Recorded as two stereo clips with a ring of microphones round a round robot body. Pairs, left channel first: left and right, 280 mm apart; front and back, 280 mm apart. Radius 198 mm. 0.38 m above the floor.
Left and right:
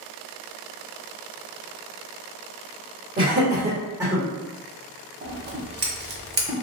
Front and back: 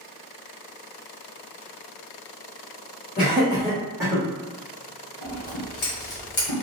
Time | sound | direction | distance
3.2 | laughter | 45° right | 1.2 m
5.2 | scissors | 35° right | 0.9 m